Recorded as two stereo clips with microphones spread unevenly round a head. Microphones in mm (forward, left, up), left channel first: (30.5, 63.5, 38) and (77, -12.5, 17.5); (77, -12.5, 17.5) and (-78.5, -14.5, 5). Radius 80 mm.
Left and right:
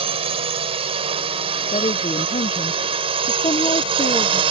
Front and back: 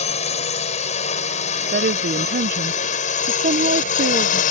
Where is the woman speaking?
145° left.